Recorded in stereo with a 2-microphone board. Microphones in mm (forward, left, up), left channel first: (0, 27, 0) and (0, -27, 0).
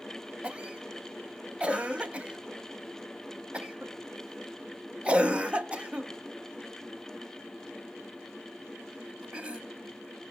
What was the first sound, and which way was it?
A cough, 20° right (ahead or behind).